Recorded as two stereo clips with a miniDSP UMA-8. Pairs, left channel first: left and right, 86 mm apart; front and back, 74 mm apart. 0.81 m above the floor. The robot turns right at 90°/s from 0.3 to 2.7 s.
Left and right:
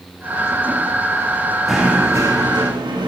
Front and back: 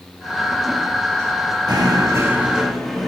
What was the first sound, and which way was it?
Knocking, straight behind.